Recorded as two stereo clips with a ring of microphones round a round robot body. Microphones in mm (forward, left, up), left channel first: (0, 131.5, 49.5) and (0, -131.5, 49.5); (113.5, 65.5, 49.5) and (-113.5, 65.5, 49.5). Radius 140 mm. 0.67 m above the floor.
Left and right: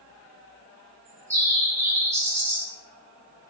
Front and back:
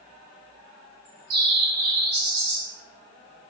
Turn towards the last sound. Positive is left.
turn(degrees=-170)